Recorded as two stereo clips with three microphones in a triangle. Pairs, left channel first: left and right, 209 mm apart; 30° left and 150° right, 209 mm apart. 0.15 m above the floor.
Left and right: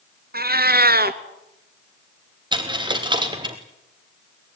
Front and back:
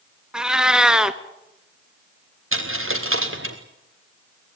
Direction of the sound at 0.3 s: 65° right.